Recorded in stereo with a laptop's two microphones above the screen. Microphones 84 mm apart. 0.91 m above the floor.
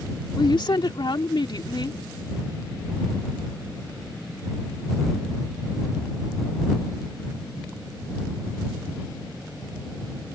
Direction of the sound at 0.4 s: 65° left (ahead or behind).